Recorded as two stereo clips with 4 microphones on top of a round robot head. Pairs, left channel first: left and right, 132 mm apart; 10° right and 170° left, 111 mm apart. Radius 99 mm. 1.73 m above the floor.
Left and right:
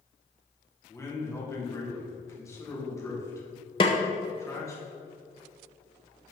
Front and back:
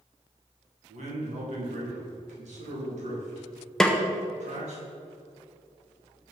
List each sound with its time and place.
0.9 s a man speaking: 160° left, 3 m
3.8 s a snare drum: 70° left, 0.7 m